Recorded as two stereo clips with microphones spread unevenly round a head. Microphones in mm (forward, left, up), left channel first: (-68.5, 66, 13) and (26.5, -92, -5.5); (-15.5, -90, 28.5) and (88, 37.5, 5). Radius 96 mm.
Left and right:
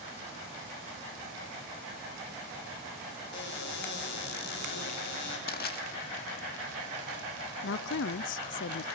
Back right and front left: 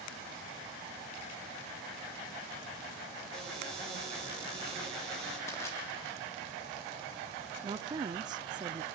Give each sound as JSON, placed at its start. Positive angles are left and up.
{"t": 3.3, "sound": "a cupboard door", "azimuth_deg": 145, "distance_m": 6.5}
{"t": 5.5, "sound": "crushing", "azimuth_deg": 155, "distance_m": 2.5}
{"t": 7.6, "sound": "a woman speaking", "azimuth_deg": 125, "distance_m": 0.6}